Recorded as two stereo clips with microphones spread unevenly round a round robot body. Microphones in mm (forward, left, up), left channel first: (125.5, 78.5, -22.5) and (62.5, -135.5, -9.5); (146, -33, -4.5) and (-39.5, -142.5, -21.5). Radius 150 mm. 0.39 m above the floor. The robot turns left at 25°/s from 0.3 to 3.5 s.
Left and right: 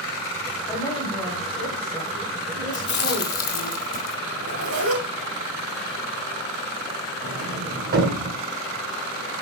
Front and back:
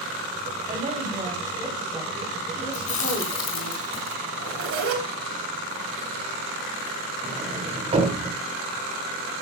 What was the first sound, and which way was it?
A woman speaking, 150° left.